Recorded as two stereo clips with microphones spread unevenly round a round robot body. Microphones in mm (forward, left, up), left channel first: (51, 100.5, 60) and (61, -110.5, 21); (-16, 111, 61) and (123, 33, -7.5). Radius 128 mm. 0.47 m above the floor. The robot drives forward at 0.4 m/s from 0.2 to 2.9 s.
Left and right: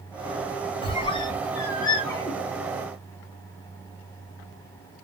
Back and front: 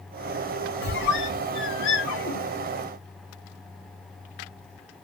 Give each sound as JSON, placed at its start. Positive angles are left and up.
{"t": 0.8, "sound": "a squeak", "azimuth_deg": 160, "distance_m": 0.6}